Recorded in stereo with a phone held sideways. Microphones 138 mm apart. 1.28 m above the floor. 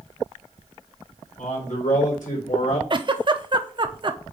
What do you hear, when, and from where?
1.4 s a man speaking: 75° left (ahead or behind), 4 m; by 2.8 s 80° left, 3.5 m
2.9 s a giggle: 40° right (ahead or behind), 0.7 m